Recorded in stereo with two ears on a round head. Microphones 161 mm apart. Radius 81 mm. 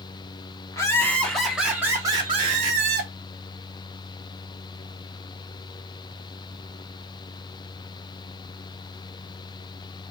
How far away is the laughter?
About 1.3 m.